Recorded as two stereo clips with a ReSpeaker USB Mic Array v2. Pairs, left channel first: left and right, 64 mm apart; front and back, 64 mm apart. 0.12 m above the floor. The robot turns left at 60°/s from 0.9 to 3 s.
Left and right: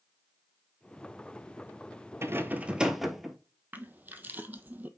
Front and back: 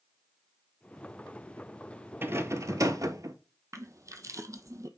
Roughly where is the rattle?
Behind right.